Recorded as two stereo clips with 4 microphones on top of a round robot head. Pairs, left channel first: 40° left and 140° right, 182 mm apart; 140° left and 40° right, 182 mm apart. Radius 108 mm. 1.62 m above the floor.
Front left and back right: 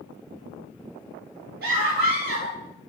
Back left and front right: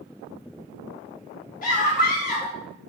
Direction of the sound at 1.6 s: 175° right.